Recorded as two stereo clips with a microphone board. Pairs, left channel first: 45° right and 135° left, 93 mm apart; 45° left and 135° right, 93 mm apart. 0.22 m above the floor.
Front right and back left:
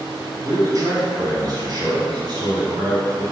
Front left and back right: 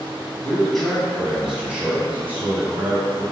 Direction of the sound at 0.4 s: 120° left.